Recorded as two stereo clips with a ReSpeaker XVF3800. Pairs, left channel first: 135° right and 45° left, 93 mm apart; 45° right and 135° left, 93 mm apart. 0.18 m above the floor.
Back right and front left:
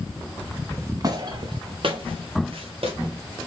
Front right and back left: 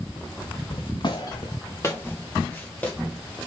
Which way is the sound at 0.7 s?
20° right.